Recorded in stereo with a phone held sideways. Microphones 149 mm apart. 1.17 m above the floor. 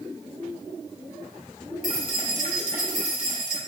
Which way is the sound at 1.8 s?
70° right (ahead or behind).